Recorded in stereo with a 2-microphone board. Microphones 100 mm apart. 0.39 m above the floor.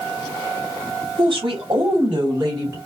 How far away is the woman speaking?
About 3 m.